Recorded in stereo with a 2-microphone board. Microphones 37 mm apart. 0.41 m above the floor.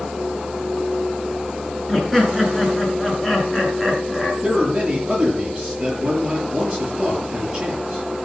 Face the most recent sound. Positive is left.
turn(degrees=-15)  # may be behind; listen again after turning